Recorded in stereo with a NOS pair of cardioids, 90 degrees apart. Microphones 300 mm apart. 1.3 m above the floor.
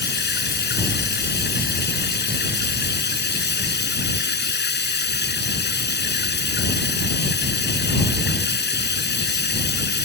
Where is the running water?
35° left.